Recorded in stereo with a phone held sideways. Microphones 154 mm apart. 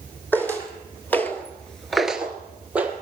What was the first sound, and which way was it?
Footsteps, 10° left (ahead or behind).